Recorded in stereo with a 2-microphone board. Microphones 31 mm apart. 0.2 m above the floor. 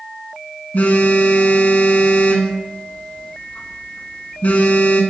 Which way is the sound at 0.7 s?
60° left (ahead or behind).